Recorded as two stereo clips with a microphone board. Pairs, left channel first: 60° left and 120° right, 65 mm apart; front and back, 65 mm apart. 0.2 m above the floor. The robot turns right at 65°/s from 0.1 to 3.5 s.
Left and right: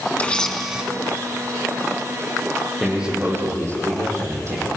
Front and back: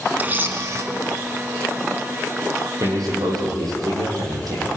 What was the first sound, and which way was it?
A camera shutter, 120° left.